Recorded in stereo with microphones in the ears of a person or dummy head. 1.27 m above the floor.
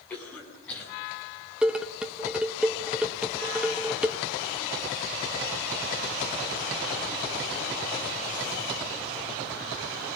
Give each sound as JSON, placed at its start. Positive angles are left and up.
{"t": 0.1, "sound": "a cough", "side_deg": 10, "distance_m": 9.0}
{"t": 1.6, "sound": "dishes clattering", "side_deg": -5, "distance_m": 0.7}